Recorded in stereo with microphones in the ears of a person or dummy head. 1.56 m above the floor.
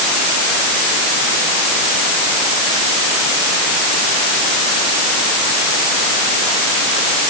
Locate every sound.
Only background noise.